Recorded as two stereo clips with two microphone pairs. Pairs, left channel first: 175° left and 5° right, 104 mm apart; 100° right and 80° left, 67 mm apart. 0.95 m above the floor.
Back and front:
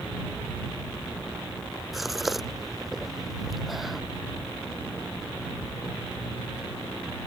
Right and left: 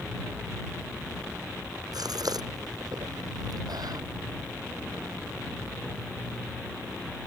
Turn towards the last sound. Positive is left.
turn(degrees=85)